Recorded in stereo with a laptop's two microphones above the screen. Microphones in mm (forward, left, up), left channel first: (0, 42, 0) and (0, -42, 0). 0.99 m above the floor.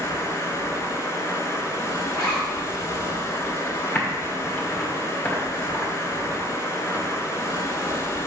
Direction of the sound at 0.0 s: 35° left (ahead or behind).